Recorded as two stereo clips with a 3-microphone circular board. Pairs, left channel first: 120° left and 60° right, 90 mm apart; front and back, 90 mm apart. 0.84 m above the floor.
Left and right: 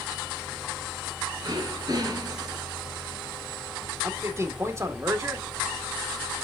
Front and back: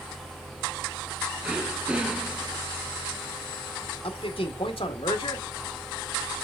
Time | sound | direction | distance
1.4 | throat clearing | 100° right | 2.5 m
4.0 | a man speaking | straight ahead | 2.0 m